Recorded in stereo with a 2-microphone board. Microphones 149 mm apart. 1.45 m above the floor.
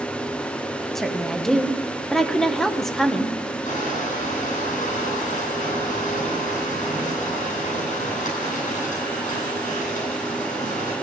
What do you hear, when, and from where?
0.9 s a woman speaking: centre (ahead or behind), 1.2 m
3.6 s crushing: 60° left (ahead or behind), 9 m